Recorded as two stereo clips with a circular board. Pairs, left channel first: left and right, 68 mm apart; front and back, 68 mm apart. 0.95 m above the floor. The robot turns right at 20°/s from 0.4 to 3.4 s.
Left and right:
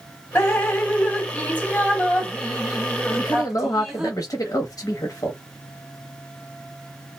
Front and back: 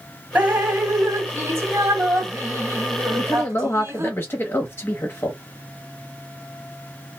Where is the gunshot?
I don't hear a gunshot.